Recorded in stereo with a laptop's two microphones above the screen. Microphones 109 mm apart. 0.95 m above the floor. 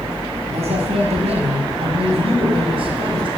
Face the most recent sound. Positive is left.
turn(degrees=-55)  # may be behind; listen again after turning